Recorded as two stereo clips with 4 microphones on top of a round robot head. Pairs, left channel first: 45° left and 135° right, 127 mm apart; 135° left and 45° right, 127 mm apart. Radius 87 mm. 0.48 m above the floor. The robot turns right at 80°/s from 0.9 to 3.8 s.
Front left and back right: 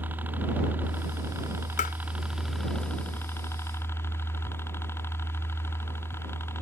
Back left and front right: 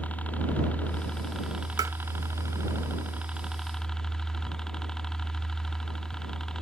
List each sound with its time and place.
0.0 s a helicopter: 175° right; by 6.6 s 60° left
1.8 s tapping: 15° left; by 1.9 s 30° left